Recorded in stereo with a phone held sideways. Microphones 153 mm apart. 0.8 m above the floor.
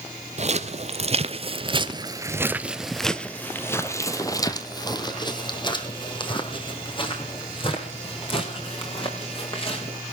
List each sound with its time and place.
0.4 s footsteps: 45° right (ahead or behind), 1.4 m; by 10.0 s 35° left (ahead or behind), 4.5 m